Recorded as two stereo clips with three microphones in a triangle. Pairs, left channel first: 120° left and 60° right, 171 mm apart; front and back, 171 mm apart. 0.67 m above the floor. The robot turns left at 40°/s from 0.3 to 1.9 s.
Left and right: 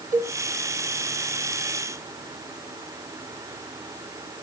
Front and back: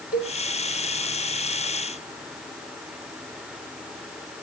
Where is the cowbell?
100° right, 1.5 m.